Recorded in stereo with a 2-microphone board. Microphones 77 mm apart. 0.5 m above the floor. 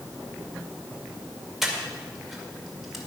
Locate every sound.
1.6 s breathing: 5° right (ahead or behind), 2.0 m